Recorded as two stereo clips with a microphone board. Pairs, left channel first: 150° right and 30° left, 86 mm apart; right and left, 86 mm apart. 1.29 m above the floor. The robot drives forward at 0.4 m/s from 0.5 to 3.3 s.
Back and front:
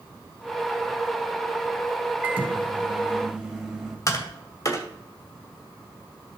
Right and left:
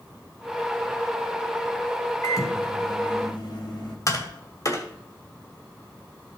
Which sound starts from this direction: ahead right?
A microwave, at 2.2 s.